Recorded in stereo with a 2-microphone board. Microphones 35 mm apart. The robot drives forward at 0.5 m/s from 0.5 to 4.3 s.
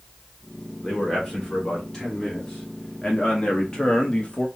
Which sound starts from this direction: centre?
A man speaking, at 0.8 s.